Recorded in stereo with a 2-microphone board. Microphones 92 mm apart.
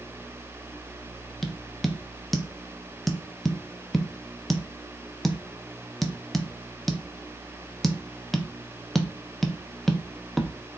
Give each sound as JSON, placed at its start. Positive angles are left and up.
{"t": 1.4, "sound": "tapping", "side_deg": 0, "distance_m": 0.5}